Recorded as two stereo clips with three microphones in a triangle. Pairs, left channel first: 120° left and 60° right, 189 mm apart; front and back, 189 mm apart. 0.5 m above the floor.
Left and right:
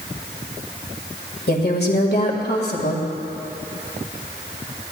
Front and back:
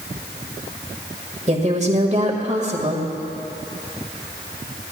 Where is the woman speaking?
135° left, 1.8 m.